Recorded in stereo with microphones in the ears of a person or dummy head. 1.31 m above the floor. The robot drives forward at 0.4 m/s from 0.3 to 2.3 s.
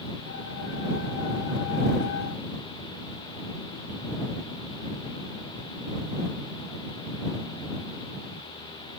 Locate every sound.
Only background noise.